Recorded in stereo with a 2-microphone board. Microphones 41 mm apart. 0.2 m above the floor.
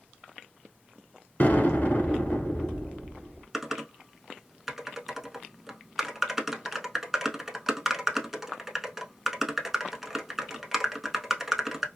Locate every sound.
1.4 s an explosion: 55° left (ahead or behind), 1.0 m
3.5 s typing on a keyboard: 10° right (ahead or behind), 0.6 m